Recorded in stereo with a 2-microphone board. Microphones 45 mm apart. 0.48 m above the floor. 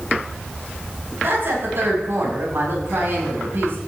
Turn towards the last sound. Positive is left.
turn(degrees=-55)  # may be behind; listen again after turning